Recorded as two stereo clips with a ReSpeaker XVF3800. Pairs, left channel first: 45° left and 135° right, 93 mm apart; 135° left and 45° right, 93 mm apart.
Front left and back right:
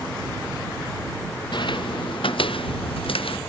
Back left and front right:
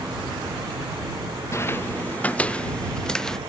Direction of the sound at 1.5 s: 75° left.